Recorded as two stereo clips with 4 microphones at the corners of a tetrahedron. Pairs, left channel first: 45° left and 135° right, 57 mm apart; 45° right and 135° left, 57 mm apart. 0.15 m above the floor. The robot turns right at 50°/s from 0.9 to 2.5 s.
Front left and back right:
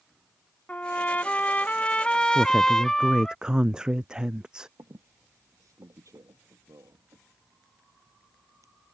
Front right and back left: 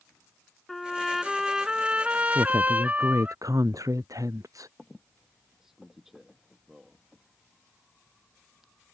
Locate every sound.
0.7 s a trumpet: 35° left; by 3.4 s 115° left
2.4 s a woman speaking: 140° left; by 4.7 s 150° left
4.8 s a squeak: 140° right